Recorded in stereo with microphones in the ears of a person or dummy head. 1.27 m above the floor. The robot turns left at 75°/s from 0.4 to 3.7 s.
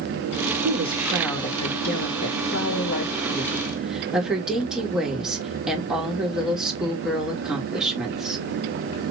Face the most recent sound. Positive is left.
turn(degrees=-5)